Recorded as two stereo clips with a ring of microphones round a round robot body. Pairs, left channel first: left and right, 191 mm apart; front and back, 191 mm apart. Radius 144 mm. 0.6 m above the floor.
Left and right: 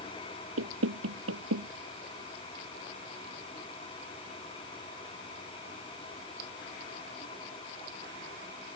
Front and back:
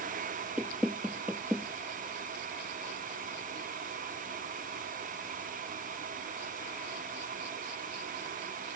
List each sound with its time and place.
0.6 s knocking: 95° right